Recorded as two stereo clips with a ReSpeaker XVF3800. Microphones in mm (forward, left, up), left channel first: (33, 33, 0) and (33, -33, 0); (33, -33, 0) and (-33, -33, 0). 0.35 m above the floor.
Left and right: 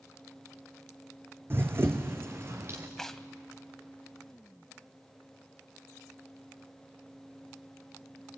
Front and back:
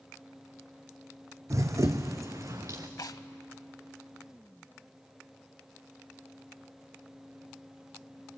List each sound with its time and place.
1.5 s running footsteps: 140° right, 1.1 m
3.0 s tearing paper: 5° left, 0.7 m